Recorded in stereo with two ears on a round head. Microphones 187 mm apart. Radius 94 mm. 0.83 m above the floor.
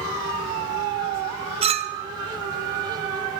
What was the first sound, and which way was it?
A clink, 30° right (ahead or behind).